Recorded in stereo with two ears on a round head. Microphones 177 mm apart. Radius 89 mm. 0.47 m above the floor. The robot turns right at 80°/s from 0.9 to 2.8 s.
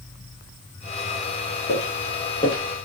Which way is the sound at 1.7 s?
60° left (ahead or behind).